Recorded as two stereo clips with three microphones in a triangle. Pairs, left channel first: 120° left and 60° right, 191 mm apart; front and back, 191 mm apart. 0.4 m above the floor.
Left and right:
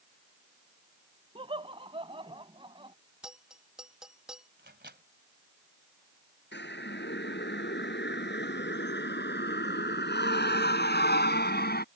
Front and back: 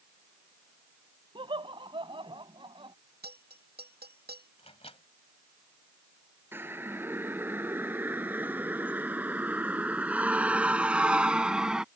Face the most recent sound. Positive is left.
turn(degrees=95)